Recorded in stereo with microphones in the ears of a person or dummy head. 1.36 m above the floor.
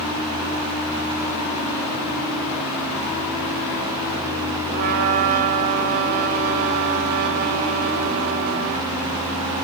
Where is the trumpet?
50° right (ahead or behind), 4 m.